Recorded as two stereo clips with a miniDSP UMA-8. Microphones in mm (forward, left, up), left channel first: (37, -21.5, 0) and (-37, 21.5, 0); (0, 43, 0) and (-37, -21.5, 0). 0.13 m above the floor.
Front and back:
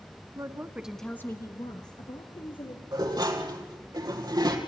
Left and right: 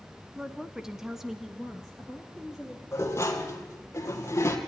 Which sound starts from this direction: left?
Dishes clattering, at 2.9 s.